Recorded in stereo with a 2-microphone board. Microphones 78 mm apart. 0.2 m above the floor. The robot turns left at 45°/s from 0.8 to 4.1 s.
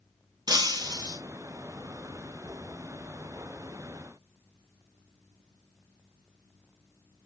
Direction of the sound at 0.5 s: 70° right (ahead or behind).